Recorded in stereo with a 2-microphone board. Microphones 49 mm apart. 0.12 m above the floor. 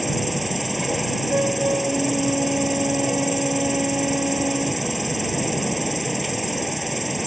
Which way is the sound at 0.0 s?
Centre (ahead or behind).